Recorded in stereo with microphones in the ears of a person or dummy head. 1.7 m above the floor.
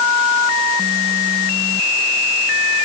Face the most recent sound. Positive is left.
No sound to turn to.